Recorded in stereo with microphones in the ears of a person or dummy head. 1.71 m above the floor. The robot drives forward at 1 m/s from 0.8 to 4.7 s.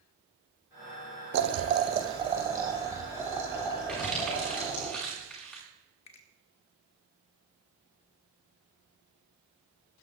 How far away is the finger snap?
About 1.1 m.